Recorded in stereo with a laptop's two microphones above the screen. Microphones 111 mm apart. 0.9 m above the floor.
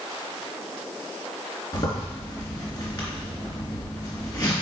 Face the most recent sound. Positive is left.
turn(degrees=40)  # may be behind; listen again after turning